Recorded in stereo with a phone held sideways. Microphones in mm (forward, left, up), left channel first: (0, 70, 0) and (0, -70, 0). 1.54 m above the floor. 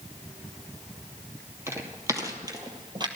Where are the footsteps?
15° right (ahead or behind), 2.5 m; by 3.1 s 30° right (ahead or behind), 2 m.